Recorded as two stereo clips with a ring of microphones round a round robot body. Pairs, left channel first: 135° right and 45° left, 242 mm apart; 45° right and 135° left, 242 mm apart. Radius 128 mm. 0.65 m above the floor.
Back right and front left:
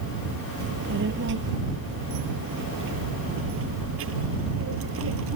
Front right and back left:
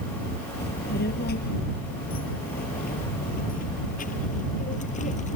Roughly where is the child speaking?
Ahead.